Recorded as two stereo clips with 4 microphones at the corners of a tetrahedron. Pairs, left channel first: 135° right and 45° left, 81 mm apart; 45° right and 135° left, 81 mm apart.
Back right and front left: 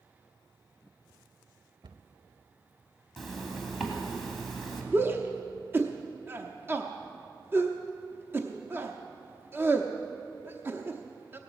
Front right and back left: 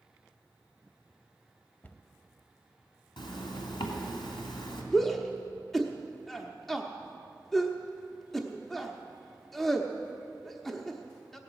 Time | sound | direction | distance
1.8 | a cupboard door | 25° left | 0.7 m
3.2 | a zipper | 45° right | 2.5 m
4.9 | a shout | 35° left | 0.8 m